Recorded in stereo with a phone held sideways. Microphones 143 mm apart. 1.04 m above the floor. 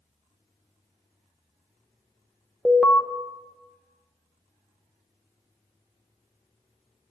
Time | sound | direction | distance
2.6 | an alarm | centre (ahead or behind) | 0.9 m